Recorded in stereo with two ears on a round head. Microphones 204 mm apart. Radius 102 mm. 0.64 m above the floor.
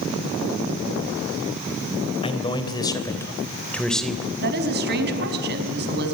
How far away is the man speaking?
About 3 m.